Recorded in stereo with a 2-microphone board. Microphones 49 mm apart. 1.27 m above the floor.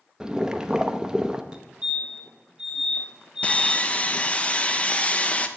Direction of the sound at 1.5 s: 20° right (ahead or behind).